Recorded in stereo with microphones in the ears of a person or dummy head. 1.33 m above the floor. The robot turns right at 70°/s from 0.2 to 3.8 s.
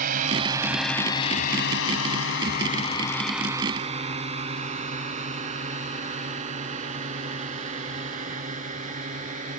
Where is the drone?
45° right (ahead or behind).